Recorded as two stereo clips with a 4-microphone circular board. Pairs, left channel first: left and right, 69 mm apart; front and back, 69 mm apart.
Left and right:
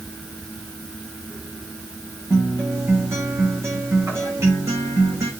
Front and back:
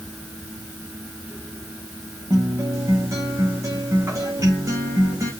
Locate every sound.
2.3 s a guitar: 140° right, 3.5 m